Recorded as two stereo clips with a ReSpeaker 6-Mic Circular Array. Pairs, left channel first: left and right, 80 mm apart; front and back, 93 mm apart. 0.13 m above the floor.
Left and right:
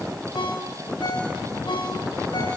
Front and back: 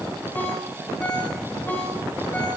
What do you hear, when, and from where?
0.3 s a ringtone: 70° left, 6 m